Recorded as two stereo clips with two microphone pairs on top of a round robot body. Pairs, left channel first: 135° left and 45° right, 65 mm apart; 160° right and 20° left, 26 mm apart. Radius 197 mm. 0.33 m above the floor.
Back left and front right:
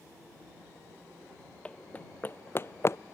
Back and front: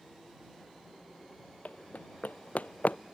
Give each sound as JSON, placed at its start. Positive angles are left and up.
{"t": 1.6, "sound": "running footsteps", "azimuth_deg": -155}